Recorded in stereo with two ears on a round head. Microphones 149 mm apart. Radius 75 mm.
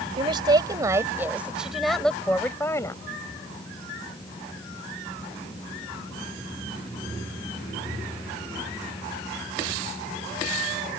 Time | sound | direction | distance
0.2 | a woman speaking | 30° right (ahead or behind) | ?